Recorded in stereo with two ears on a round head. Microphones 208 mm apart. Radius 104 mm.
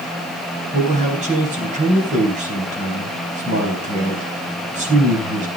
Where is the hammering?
No hammering in this recording.